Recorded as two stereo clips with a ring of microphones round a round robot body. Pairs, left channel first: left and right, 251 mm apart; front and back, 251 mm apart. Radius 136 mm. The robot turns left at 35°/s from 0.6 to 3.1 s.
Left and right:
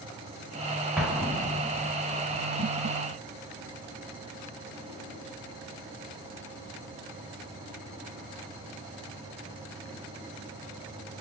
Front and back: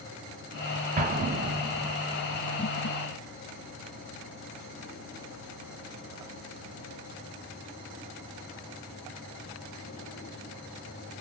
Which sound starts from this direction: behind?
An explosion, at 1.0 s.